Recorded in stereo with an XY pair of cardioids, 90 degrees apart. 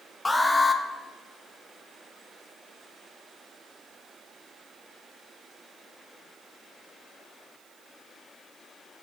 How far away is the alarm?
About 1.1 m.